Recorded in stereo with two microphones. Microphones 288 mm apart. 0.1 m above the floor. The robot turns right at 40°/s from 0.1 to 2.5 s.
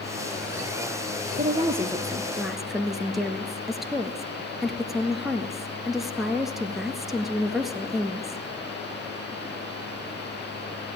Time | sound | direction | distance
1.4 | a woman speaking | 45° right | 1.4 m